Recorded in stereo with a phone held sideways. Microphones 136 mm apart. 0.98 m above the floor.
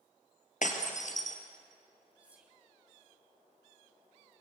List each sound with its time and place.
0.6 s breaking glass: 65° left (ahead or behind), 2.5 m
2.2 s whispering: 10° right (ahead or behind), 2 m